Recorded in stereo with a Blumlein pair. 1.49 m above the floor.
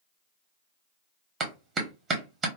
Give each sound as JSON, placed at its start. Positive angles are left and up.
{"t": 1.4, "sound": "a clap", "azimuth_deg": -20, "distance_m": 1.1}